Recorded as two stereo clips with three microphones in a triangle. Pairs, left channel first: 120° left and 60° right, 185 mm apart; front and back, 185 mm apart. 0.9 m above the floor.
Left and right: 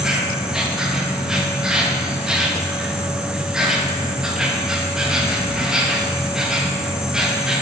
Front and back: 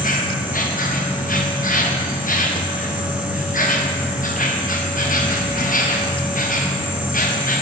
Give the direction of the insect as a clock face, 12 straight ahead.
11 o'clock.